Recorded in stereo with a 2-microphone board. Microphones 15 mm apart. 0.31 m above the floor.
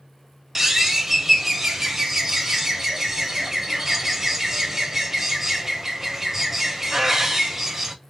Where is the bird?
25° right (ahead or behind), 1.0 m.